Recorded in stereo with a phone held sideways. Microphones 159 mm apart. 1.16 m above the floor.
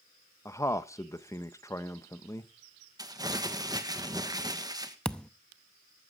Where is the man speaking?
20° left (ahead or behind), 0.8 m.